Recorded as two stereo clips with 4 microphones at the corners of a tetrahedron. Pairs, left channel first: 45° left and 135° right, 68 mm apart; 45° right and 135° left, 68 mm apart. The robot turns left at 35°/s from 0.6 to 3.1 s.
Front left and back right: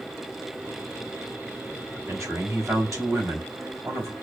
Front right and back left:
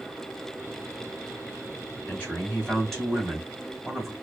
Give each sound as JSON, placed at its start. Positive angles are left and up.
{"t": 2.1, "sound": "a man speaking", "azimuth_deg": -100, "distance_m": 2.0}